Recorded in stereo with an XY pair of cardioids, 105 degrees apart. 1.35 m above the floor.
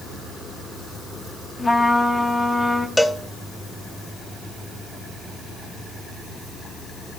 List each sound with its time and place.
1.6 s a trumpet: 20° left, 1.3 m
3.0 s a cowbell: 5° left, 0.8 m